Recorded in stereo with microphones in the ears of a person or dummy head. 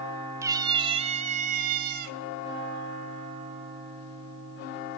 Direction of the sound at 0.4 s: 20° right (ahead or behind).